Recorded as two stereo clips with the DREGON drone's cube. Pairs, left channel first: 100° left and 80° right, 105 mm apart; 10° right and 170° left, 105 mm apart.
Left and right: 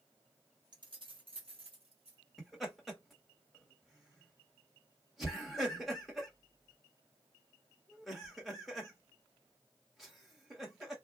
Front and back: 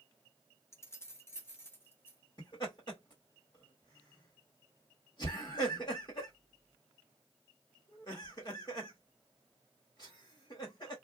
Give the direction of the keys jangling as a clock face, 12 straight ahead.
2 o'clock.